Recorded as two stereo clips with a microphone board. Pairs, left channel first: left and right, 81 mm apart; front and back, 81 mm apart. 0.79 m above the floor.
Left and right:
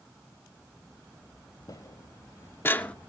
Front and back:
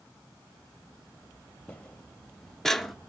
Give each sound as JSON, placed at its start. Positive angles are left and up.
{"t": 1.7, "sound": "footsteps", "azimuth_deg": 75, "distance_m": 1.3}